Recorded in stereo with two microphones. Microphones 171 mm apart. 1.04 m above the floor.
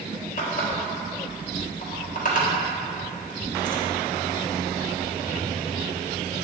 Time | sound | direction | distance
0.4 | a running tap | 50° left (ahead or behind) | 1.2 m